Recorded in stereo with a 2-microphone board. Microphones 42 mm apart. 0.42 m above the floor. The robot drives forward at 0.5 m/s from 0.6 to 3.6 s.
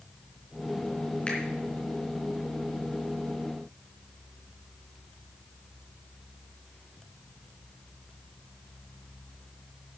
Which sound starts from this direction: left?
A finger snap, at 1.3 s.